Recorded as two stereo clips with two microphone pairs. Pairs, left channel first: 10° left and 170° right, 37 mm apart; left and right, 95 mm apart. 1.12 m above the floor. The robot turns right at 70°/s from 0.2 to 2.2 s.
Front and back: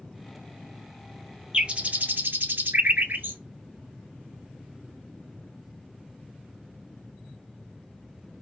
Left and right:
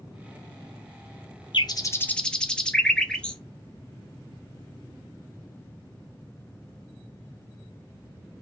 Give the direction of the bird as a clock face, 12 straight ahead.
8 o'clock.